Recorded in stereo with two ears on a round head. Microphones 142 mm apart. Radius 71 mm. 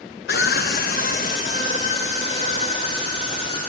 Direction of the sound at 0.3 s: 65° left (ahead or behind).